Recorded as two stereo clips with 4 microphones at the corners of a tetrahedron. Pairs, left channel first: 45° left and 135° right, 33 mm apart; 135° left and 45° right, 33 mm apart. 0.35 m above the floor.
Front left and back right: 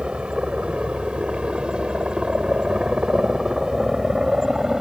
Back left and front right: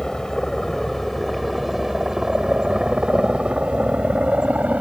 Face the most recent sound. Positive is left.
turn(degrees=-65)